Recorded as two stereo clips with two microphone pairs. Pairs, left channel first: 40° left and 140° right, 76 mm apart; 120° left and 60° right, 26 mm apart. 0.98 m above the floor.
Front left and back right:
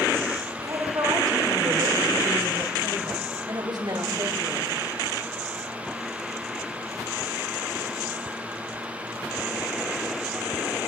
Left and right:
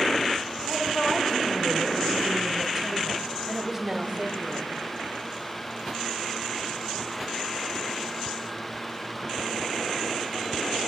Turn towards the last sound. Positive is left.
turn(degrees=-140)